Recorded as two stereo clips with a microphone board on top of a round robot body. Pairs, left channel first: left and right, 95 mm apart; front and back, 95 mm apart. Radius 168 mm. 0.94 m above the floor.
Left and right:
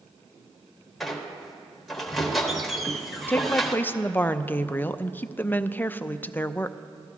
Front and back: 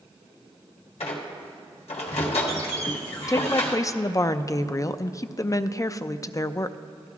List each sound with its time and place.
1.0 s a squeak: straight ahead, 1.4 m
3.3 s a woman speaking: 30° left, 0.5 m